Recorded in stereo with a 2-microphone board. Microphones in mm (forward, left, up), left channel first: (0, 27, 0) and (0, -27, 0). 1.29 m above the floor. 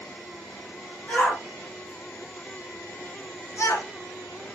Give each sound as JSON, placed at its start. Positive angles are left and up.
{"t": 1.1, "sound": "a shout", "side_deg": 25, "distance_m": 2.0}